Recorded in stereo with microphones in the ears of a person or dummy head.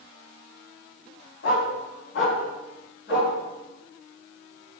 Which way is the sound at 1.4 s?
65° left (ahead or behind).